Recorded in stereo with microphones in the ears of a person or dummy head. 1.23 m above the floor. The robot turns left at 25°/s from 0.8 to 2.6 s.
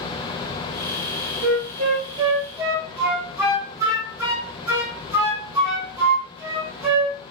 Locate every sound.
1.4 s a flute: 35° right (ahead or behind), 0.8 m; by 7.2 s 10° right (ahead or behind), 0.8 m